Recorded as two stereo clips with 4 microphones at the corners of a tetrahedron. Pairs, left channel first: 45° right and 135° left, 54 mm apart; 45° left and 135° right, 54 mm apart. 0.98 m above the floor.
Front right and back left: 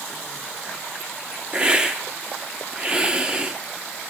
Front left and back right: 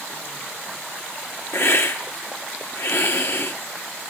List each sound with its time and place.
1.5 s a hiss: 70° left, 1.1 m